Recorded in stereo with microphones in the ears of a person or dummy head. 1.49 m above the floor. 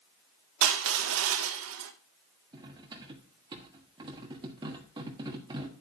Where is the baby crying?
I don't hear a baby crying.